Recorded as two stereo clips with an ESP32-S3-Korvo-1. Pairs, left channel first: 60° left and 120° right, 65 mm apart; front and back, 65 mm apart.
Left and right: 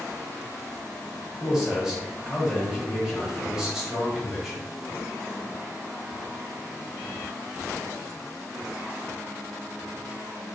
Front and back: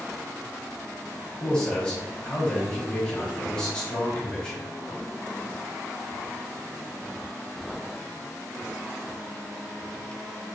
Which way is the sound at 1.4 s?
55° right.